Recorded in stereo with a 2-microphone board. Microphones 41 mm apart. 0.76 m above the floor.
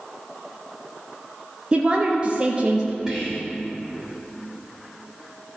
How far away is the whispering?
About 1.9 m.